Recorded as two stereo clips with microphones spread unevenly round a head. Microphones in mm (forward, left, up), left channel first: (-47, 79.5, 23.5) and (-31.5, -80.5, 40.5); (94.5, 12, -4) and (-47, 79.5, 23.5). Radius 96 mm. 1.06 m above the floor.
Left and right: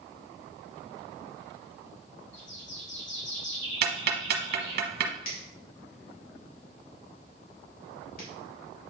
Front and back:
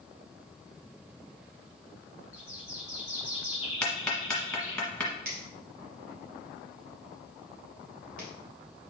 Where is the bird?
80° left, 3 m.